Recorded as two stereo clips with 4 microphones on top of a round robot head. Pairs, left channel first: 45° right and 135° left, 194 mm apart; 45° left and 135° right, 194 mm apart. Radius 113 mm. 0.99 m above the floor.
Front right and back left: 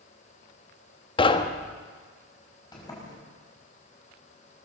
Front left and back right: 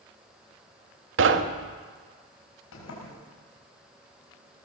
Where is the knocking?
110° right, 1.3 m.